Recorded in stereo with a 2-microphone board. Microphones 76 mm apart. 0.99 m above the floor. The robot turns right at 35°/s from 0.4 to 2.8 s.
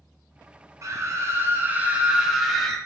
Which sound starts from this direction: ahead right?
A scream, at 0.8 s.